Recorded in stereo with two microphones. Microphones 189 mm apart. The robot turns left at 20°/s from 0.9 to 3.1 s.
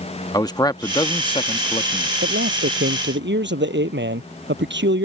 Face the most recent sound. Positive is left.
turn(degrees=-70)  # may be behind; listen again after turning